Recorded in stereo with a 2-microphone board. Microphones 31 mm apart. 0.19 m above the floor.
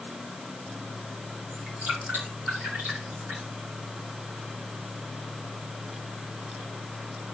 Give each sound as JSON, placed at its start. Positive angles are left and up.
{"t": 1.5, "sound": "dripping", "side_deg": -75, "distance_m": 7.5}